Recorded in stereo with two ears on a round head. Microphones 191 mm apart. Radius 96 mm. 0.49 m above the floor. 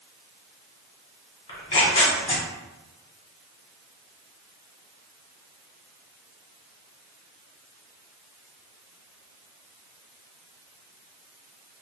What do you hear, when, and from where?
1.5 s tearing paper: 30° left (ahead or behind), 1.3 m